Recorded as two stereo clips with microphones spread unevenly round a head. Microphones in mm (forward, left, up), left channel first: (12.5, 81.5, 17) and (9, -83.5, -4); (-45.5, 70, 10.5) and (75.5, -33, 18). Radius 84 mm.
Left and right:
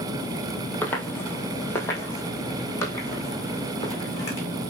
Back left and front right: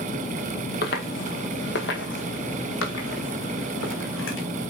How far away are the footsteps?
About 1.8 m.